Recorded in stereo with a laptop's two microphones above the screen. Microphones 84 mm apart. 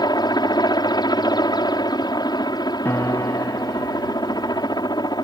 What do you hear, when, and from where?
0.0 s a helicopter: 55° left (ahead or behind)
2.9 s a piano: 25° left (ahead or behind)